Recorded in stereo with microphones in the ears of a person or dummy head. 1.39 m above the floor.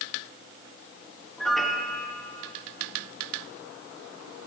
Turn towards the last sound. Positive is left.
turn(degrees=0)  # may be behind; listen again after turning